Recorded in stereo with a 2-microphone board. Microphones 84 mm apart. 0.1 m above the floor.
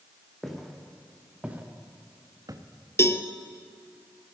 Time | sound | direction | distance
0.4 | footsteps | centre (ahead or behind) | 2 m
3.0 | a cowbell | 30° left (ahead or behind) | 0.6 m